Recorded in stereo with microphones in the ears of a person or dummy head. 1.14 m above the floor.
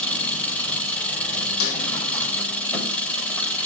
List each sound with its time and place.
0.0 s an engine running: 5° left (ahead or behind), 3.5 m
1.6 s a snare drum: 85° left, 5 m